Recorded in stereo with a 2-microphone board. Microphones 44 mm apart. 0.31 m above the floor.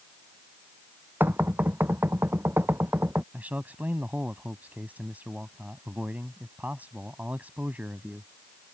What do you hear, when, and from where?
1.2 s knocking: 55° right (ahead or behind)
3.3 s a man speaking: 40° right (ahead or behind)